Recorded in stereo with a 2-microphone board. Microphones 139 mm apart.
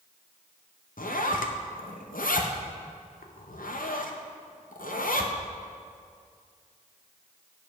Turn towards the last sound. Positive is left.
turn(degrees=80)